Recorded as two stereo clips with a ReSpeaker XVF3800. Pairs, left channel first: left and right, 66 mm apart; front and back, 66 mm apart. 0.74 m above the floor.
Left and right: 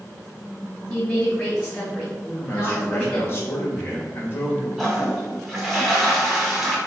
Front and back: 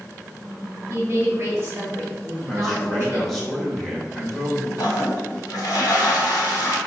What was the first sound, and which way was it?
A woman speaking, 165° left.